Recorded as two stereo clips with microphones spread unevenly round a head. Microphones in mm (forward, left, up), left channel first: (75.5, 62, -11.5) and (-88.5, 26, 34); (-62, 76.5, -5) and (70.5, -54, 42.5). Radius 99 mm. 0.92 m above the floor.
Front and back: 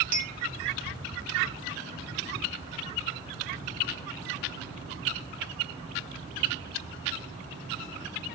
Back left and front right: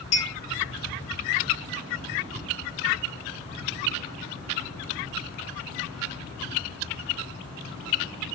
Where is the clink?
150° left, 1.0 m.